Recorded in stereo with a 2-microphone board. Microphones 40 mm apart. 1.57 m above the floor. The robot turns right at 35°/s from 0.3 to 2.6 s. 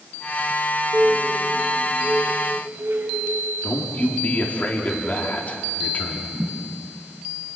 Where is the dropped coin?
I don't hear a dropped coin.